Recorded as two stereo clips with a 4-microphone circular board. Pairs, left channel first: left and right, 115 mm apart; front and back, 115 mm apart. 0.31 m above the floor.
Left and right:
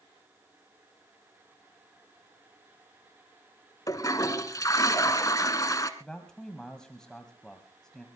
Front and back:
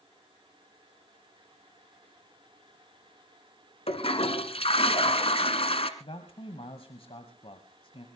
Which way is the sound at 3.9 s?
30° left.